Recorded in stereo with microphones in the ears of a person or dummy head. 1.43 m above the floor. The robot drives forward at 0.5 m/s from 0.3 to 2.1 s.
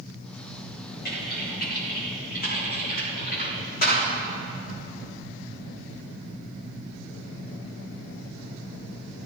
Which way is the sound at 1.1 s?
55° left (ahead or behind).